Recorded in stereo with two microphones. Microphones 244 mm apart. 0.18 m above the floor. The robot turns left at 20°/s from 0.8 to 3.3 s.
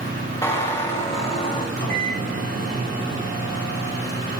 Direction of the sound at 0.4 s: 15° left (ahead or behind).